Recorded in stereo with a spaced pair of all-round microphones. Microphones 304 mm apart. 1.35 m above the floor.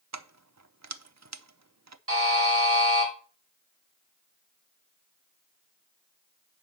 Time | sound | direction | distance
0.1 | keys jangling | 60° right (ahead or behind) | 0.6 m
2.1 | a buzzer | 50° right (ahead or behind) | 3.5 m